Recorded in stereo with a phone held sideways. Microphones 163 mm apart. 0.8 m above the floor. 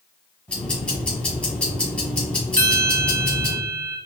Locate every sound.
0.5 s ticking: 5° left (ahead or behind), 1.8 m
2.6 s a bell: 50° left (ahead or behind), 1.7 m